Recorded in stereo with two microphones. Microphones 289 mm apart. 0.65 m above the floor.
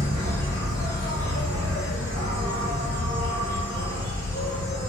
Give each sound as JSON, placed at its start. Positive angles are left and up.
{"t": 0.0, "sound": "an insect", "side_deg": -70, "distance_m": 1.1}